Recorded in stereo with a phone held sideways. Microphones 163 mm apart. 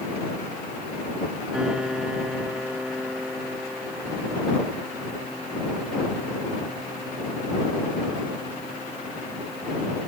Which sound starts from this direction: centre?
A piano, at 1.5 s.